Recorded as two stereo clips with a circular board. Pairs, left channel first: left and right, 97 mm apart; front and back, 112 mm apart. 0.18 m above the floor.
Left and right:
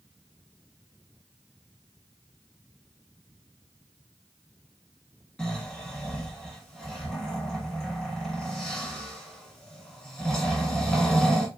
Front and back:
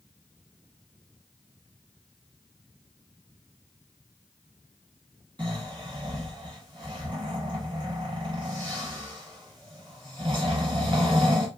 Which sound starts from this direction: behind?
Snoring, at 5.4 s.